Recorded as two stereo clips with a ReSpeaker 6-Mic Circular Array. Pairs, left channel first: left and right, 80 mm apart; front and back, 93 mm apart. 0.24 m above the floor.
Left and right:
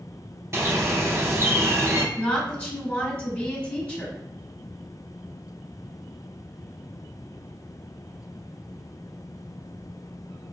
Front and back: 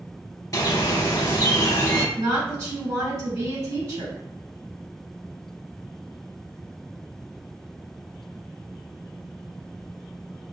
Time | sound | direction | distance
0.5 | a bird | 40° right | 0.6 m
2.1 | a woman speaking | 160° left | 1.4 m